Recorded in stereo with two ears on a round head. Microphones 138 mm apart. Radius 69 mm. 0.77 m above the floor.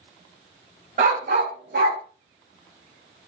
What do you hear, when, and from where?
1.0 s a dog barking: 50° right (ahead or behind), 0.7 m; by 2.0 s 70° right (ahead or behind), 1.2 m